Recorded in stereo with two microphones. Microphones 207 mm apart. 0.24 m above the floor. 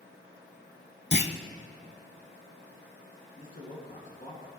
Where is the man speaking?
40° left (ahead or behind), 2.5 m.